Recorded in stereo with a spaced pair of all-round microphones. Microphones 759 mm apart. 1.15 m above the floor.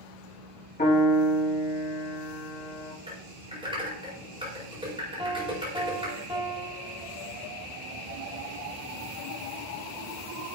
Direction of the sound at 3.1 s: 5° right (ahead or behind).